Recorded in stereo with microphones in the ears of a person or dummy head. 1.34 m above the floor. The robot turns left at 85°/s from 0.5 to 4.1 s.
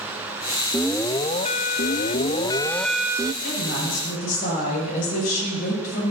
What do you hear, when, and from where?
0.7 s an alarm: 170° right, 0.5 m; by 3.3 s 30° right, 0.5 m
3.4 s a woman speaking: 115° left, 8 m; by 6.1 s 60° left, 8 m